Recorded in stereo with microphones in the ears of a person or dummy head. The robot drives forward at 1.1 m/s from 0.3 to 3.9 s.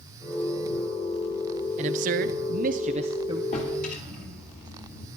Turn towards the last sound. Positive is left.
turn(degrees=50)  # may be behind; listen again after turning